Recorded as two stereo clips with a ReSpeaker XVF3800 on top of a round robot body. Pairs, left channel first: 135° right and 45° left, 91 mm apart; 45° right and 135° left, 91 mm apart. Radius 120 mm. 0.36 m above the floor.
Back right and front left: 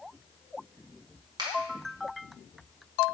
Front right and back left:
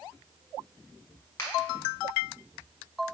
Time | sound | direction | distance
1.4 | a finger snap | 10° left | 1.8 m